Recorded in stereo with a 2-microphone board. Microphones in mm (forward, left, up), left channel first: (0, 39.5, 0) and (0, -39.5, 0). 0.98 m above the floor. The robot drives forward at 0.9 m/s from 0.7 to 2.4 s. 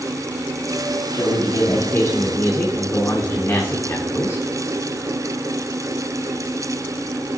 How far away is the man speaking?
About 1.9 m.